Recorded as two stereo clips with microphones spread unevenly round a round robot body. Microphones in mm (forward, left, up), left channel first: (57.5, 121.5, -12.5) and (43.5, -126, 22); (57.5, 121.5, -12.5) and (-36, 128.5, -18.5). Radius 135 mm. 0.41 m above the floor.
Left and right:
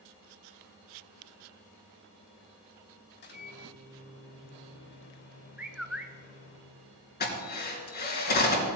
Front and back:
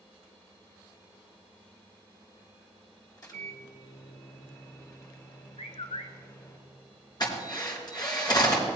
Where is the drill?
35° left, 4 m.